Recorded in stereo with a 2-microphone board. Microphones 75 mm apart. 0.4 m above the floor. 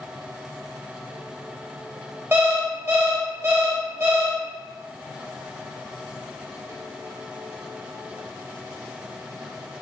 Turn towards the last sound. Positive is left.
turn(degrees=-30)  # may be behind; listen again after turning